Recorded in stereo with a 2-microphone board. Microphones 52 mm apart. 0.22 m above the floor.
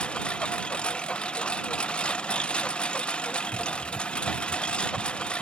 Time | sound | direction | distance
0.0 | a lawn mower | 20° left (ahead or behind) | ?